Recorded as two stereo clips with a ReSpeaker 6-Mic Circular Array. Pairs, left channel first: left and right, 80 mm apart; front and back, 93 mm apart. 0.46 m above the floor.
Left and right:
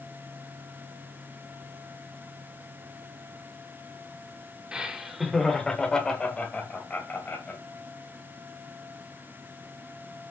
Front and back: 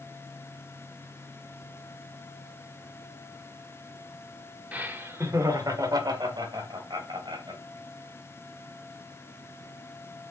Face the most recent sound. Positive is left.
turn(degrees=155)